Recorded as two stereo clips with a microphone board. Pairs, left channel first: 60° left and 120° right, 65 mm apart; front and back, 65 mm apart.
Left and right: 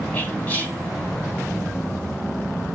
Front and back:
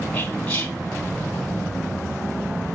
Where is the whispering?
20° left, 1.0 m.